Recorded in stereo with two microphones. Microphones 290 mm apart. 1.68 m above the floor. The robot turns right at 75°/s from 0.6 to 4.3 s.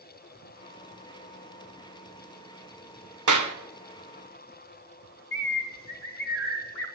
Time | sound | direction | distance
3.3 | a clap | 75° right (ahead or behind) | 1.2 m
5.3 | a bird | 50° left (ahead or behind) | 2 m